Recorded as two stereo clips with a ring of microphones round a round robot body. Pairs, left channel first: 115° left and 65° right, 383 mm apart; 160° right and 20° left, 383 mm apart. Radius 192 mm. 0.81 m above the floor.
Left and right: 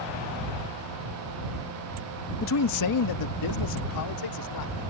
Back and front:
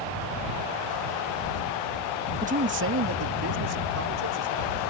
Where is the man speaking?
80° left; by 4.8 s 75° left.